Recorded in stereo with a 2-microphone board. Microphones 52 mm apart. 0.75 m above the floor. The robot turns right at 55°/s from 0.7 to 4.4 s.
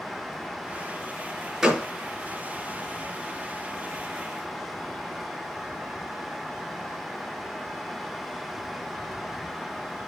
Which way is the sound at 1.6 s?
5° right (ahead or behind).